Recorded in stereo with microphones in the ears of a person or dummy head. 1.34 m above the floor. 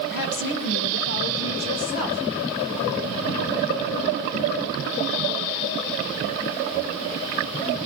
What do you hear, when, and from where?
0.1 s a woman speaking: 65° left (ahead or behind), 1.2 m; by 2.2 s 85° left, 3 m